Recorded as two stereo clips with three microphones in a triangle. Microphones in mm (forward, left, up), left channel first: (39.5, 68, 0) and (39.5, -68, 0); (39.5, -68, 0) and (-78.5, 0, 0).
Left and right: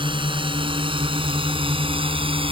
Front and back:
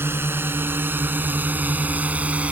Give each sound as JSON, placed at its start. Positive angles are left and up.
{"t": 0.0, "sound": "a drone", "azimuth_deg": -140}